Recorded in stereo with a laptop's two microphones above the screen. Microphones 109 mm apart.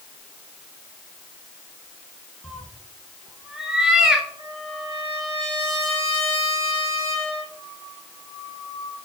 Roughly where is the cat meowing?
Centre.